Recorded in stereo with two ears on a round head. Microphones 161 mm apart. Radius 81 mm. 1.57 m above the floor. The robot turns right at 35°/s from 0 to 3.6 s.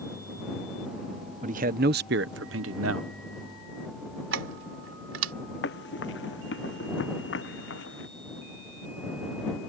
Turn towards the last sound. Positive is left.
turn(degrees=75)  # may be behind; listen again after turning